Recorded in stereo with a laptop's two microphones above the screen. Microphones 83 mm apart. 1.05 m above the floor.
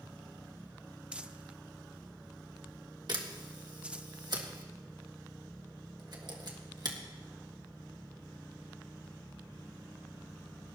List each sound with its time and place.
1.1 s crumpling: 15° right (ahead or behind), 0.6 m
3.1 s a camera shutter: 60° right (ahead or behind), 1.7 m